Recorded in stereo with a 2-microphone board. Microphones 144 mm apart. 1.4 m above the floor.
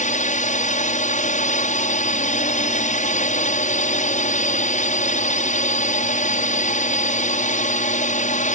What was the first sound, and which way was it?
A drone, 60° left (ahead or behind).